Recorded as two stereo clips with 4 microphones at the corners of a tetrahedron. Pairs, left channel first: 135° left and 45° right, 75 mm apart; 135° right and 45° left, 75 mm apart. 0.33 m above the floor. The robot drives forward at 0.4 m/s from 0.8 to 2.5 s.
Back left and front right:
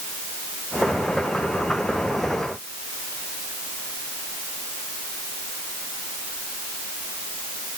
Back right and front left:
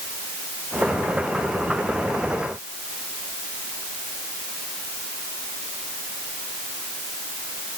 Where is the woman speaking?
No woman speaking in this recording.